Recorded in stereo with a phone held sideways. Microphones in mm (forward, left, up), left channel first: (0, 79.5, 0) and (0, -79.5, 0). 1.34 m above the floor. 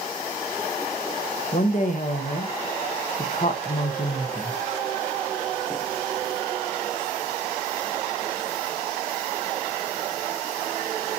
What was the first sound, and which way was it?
A woman speaking, 55° left (ahead or behind).